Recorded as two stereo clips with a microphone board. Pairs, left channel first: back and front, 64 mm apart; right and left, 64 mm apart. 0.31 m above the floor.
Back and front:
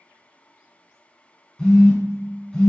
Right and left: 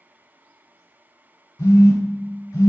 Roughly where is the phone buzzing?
Right.